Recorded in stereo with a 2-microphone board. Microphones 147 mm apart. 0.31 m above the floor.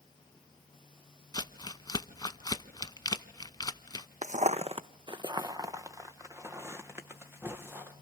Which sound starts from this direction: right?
Footsteps, at 4.2 s.